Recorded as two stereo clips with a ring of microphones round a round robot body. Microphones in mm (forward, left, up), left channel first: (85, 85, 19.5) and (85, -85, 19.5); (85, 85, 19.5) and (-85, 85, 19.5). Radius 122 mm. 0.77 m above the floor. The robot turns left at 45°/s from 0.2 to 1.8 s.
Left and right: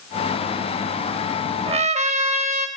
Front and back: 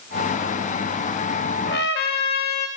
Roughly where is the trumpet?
Ahead right.